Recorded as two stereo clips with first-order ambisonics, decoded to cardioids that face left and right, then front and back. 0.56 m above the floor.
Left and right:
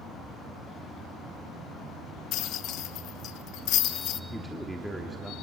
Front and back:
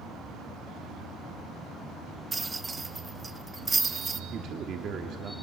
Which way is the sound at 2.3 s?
110° left.